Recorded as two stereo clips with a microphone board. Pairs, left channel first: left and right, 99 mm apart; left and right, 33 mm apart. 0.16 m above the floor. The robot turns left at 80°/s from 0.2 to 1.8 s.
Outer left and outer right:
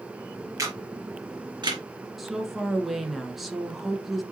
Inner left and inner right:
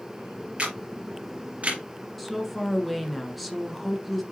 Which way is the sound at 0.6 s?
35° right (ahead or behind).